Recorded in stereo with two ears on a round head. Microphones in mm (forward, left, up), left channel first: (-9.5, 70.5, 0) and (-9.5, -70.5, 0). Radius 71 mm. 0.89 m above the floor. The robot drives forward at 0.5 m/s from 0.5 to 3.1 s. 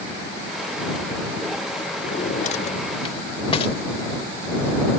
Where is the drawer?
55° left (ahead or behind); by 3.8 s 35° left (ahead or behind).